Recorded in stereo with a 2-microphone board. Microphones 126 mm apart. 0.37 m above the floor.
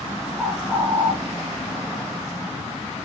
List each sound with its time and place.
0.4 s a bird: 5° right (ahead or behind), 4 m